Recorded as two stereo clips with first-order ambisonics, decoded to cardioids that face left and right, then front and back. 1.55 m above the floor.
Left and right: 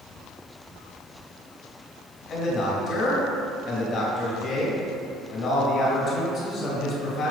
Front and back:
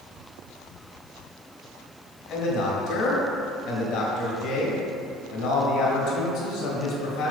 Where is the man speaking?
30° left, 2 m.